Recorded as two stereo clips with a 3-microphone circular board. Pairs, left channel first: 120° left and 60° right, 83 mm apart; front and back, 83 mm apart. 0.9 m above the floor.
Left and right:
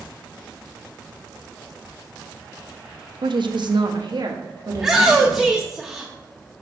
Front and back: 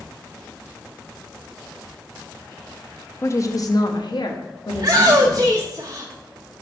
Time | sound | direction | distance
3.2 | a woman speaking | 55° right | 0.7 m
4.7 | a shout | 140° right | 0.8 m